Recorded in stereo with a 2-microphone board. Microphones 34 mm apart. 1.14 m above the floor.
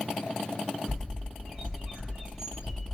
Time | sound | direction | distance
0.9 | a bird | 25° right (ahead or behind) | 1.8 m